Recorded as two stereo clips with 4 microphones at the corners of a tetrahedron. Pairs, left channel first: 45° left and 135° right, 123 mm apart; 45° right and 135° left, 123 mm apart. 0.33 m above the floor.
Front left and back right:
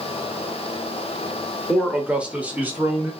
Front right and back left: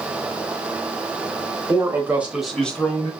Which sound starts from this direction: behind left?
A man speaking, at 1.7 s.